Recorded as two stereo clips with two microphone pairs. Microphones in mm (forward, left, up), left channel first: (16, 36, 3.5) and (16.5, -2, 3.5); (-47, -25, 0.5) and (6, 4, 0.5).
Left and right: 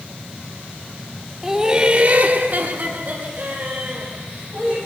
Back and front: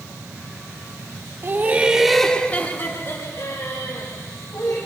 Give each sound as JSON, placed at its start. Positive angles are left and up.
{"t": 1.4, "sound": "laughter", "azimuth_deg": -10, "distance_m": 1.1}